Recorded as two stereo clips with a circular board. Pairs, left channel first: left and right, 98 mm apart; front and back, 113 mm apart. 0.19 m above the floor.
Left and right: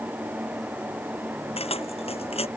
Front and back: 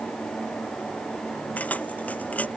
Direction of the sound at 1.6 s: 75° left.